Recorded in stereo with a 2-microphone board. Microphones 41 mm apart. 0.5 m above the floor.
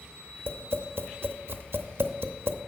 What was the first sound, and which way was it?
Tapping, 70° right (ahead or behind).